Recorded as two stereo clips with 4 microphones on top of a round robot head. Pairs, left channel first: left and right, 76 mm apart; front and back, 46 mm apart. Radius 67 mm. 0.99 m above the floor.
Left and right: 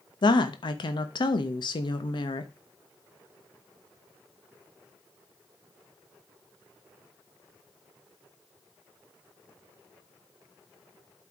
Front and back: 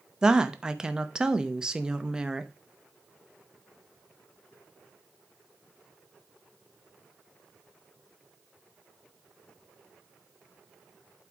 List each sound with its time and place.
0.2 s a woman speaking: 105° left, 1.0 m